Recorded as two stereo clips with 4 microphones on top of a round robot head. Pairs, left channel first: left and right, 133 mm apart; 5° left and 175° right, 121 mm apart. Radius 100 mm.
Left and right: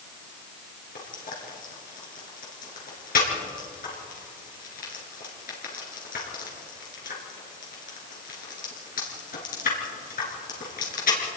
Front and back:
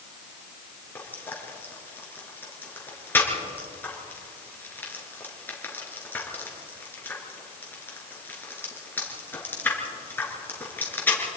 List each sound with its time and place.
0.9 s frying: 80° left, 5 m